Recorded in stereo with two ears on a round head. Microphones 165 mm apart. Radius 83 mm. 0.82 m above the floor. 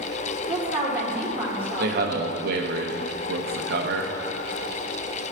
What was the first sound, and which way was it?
A woman speaking, 10° right (ahead or behind).